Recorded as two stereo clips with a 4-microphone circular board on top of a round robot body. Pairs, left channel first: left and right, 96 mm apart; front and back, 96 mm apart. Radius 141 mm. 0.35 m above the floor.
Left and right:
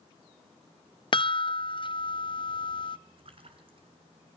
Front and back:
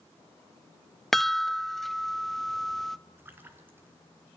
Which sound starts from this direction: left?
A chime, at 1.1 s.